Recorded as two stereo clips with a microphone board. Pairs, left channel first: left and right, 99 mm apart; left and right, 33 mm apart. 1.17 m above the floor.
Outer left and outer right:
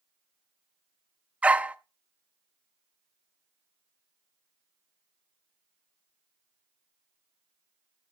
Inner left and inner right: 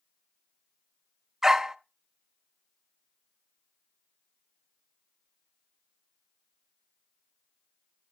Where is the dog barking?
15° right (ahead or behind), 0.6 m.